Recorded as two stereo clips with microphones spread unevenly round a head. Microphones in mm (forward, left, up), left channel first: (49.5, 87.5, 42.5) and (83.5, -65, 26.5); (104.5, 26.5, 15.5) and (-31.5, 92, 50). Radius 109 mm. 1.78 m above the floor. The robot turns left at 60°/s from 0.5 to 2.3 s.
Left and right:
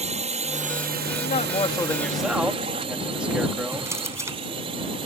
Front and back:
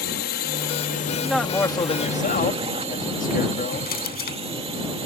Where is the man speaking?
75° left; by 3.9 s 5° left.